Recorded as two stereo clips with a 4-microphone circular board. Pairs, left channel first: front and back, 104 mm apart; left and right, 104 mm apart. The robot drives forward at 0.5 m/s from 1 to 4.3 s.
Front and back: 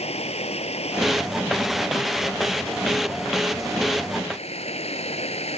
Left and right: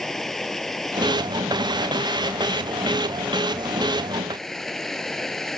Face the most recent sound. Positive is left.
turn(degrees=5)